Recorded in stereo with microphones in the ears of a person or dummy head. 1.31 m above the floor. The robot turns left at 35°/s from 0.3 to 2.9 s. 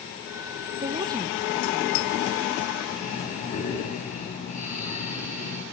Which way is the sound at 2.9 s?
45° left (ahead or behind).